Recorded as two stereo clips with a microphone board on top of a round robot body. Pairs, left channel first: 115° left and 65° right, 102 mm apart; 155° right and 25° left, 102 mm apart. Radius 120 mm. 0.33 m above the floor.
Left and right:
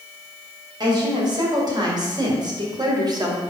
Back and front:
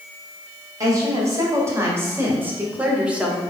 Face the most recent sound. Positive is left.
turn(degrees=-55)